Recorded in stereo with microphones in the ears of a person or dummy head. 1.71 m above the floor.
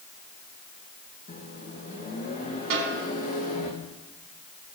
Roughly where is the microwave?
Left.